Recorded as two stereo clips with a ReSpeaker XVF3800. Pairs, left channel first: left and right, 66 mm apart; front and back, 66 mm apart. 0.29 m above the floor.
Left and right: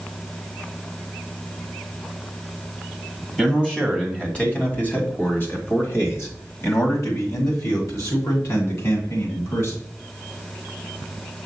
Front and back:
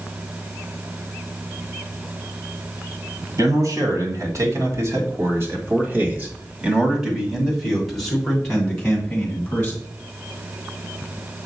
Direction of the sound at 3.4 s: 170° left.